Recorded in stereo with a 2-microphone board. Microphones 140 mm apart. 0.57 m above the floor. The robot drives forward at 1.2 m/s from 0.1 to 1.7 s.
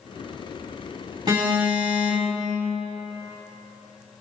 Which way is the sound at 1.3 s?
30° right (ahead or behind).